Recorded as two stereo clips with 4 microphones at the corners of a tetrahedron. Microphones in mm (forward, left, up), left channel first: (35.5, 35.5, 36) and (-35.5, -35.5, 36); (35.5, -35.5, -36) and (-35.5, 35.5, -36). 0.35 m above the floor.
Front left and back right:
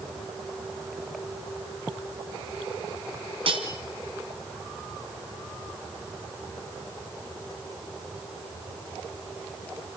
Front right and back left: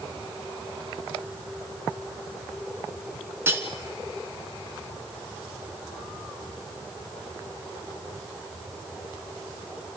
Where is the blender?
I don't hear a blender.